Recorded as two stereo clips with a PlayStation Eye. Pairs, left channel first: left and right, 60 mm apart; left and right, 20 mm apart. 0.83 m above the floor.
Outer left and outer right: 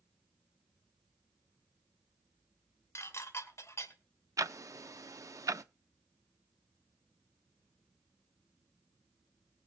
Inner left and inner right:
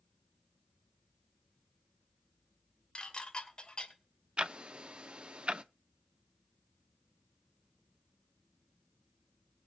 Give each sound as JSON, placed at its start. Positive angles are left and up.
{"t": 3.0, "sound": "dishes clattering", "side_deg": 50, "distance_m": 2.5}
{"t": 4.4, "sound": "ticking", "side_deg": -65, "distance_m": 0.6}